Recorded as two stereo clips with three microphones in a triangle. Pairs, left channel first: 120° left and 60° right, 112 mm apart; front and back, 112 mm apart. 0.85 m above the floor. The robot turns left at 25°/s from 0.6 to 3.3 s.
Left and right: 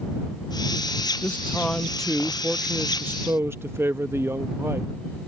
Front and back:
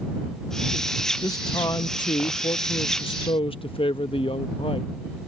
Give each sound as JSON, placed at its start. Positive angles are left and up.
{"t": 1.2, "sound": "a man speaking", "azimuth_deg": 55}